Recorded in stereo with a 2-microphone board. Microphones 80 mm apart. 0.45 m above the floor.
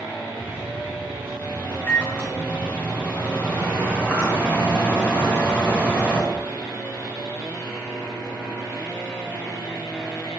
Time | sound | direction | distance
0.4 | a microwave | 20° right (ahead or behind) | 4 m